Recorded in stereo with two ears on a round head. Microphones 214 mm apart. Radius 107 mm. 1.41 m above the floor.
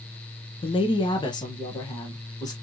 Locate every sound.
0.6 s a woman speaking: 20° left (ahead or behind), 0.8 m; by 2.5 s 15° left (ahead or behind), 1.8 m